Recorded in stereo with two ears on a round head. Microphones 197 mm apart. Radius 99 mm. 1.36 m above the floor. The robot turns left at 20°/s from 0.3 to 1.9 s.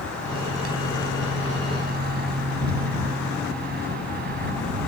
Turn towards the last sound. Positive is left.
turn(degrees=-130)